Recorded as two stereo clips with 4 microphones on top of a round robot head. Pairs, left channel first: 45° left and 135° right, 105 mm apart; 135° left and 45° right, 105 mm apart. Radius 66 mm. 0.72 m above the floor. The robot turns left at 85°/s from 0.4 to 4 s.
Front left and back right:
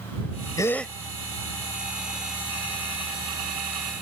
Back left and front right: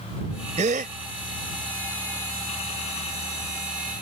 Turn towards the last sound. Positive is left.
turn(degrees=55)